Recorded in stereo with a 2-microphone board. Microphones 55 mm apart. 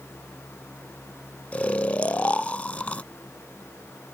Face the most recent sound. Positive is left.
turn(degrees=25)  # may be behind; listen again after turning